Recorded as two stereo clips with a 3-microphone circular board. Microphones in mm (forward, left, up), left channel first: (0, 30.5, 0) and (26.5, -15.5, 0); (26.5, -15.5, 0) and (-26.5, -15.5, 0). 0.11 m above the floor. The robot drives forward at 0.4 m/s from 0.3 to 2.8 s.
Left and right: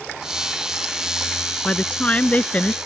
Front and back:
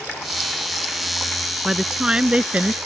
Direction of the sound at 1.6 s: 115° left.